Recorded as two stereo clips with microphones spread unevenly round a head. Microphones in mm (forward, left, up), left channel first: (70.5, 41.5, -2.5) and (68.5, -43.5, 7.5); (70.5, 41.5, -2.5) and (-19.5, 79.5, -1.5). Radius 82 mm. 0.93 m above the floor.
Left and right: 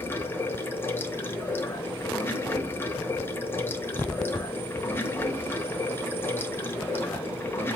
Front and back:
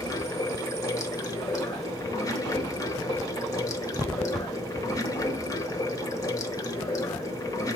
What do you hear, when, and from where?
0.0 s running water: 25° left, 0.9 m